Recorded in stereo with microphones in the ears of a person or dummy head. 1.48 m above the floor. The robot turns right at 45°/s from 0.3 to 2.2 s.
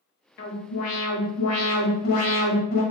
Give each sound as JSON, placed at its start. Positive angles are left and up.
{"t": 0.4, "sound": "an alarm", "azimuth_deg": 50, "distance_m": 1.0}